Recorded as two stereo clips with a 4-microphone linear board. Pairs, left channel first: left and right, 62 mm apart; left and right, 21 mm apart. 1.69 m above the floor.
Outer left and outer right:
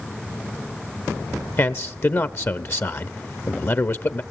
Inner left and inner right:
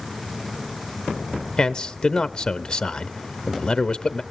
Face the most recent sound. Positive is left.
turn(degrees=45)  # may be behind; listen again after turning